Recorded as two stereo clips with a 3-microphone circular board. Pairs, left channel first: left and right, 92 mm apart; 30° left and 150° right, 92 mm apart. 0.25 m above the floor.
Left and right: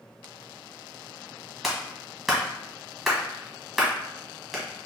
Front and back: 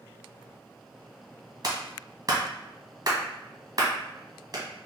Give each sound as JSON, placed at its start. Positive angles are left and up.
{"t": 1.6, "sound": "a clap", "azimuth_deg": -175, "distance_m": 1.3}